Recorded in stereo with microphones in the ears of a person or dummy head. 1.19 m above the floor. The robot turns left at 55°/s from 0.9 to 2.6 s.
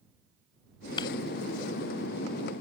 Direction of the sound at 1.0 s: 30° left (ahead or behind).